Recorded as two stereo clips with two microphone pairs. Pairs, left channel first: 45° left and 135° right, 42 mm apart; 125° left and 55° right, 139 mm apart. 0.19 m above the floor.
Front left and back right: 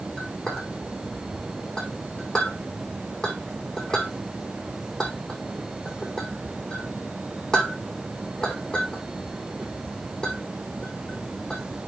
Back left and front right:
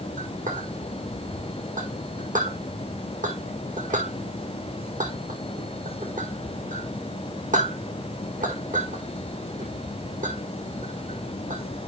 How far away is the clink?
About 6 m.